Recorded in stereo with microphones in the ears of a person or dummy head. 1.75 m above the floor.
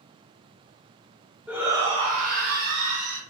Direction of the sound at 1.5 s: 5° right (ahead or behind).